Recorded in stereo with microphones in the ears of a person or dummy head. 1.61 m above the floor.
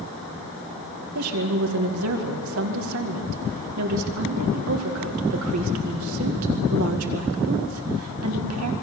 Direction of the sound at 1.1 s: 70° right (ahead or behind).